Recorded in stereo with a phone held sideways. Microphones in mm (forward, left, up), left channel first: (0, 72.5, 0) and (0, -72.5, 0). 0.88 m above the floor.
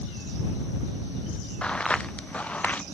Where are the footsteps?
5° left (ahead or behind); by 2.8 s 10° left (ahead or behind).